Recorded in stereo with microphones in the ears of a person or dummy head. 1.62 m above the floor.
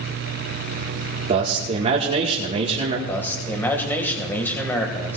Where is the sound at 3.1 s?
10° left (ahead or behind), 1.8 m.